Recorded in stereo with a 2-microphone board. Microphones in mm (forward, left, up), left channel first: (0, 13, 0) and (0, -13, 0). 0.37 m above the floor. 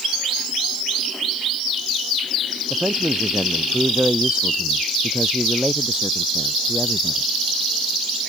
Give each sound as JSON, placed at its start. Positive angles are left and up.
{"t": 2.7, "sound": "a man speaking", "side_deg": -50}